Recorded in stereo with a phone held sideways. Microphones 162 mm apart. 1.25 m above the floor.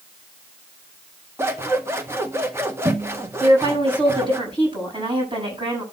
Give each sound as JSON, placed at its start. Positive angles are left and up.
{"t": 1.4, "sound": "scissors", "side_deg": -15, "distance_m": 1.5}
{"t": 3.4, "sound": "a woman speaking", "side_deg": -30, "distance_m": 7.5}